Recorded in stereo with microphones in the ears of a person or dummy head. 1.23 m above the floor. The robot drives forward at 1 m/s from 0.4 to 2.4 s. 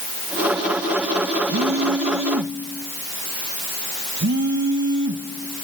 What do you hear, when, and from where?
1.5 s a phone buzzing: 65° right (ahead or behind), 1.4 m; by 5.6 s 50° right (ahead or behind), 1.6 m